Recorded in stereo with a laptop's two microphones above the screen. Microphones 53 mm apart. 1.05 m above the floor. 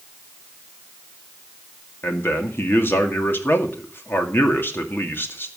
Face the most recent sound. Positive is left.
turn(degrees=45)  # may be behind; listen again after turning